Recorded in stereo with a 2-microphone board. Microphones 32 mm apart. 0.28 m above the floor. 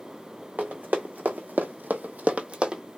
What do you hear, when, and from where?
0.6 s running footsteps: 55° right (ahead or behind), 1.1 m; by 2.8 s 25° right (ahead or behind), 0.7 m